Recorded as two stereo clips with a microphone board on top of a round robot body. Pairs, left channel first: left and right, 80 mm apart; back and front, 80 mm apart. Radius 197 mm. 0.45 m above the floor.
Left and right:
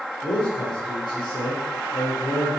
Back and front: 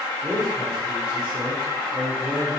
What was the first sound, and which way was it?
A man speaking, 60° left.